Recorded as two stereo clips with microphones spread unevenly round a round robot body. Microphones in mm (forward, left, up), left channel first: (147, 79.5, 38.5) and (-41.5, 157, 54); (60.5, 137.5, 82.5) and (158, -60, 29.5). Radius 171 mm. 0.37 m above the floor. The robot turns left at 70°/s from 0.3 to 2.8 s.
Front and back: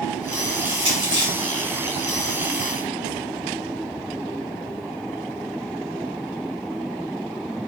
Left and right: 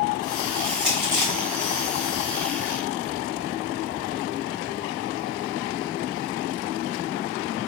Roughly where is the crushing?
Right.